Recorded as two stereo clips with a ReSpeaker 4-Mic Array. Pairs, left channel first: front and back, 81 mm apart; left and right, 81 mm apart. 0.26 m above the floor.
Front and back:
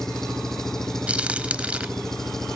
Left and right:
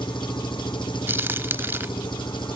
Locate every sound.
0.0 s an engine running: 85° left
1.1 s a crack: 120° right